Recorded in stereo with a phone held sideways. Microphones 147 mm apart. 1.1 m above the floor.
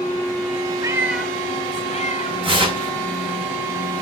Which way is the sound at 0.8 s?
25° right (ahead or behind).